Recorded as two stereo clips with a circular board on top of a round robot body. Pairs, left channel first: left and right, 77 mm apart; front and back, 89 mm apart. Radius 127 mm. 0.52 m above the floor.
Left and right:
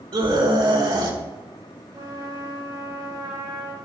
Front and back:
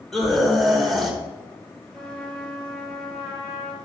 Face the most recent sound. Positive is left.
turn(degrees=-80)